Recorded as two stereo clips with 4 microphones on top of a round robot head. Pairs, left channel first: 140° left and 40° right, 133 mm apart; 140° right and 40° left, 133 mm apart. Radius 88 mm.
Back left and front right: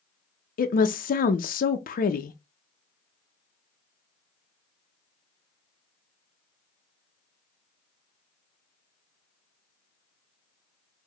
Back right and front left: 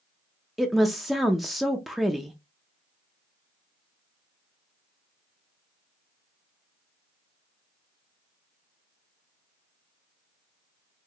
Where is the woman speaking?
130° left, 0.5 m.